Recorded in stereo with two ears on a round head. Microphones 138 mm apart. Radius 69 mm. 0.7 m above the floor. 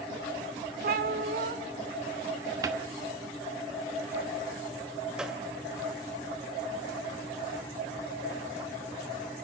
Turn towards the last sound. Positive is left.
turn(degrees=-5)  # may be behind; listen again after turning